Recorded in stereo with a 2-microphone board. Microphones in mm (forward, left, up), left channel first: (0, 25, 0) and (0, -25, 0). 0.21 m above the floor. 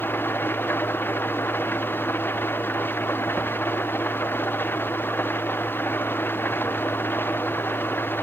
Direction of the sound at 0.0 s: 45° left (ahead or behind).